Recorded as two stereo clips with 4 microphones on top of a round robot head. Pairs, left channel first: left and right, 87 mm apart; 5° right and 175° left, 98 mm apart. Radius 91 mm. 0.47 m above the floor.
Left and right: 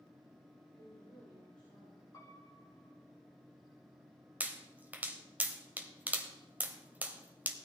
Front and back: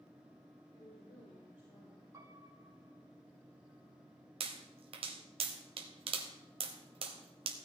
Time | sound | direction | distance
0.7 | a woman speaking | straight ahead | 4 m
2.1 | a piano | 130° left | 2.5 m
4.4 | a pop | 160° right | 1.2 m